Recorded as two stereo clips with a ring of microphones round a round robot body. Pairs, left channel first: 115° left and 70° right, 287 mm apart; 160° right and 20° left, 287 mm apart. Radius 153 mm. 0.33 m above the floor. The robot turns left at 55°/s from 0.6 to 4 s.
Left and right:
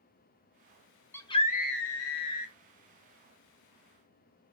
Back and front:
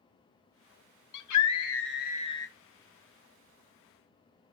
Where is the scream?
165° right, 2.5 m; by 2.5 s 120° left, 2.5 m.